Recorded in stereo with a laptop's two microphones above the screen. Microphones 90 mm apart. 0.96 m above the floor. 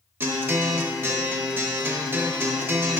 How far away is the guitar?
About 0.7 m.